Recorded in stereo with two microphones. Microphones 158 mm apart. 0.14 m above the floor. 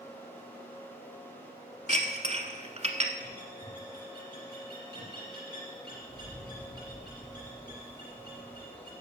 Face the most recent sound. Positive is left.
turn(degrees=-25)  # may be behind; listen again after turning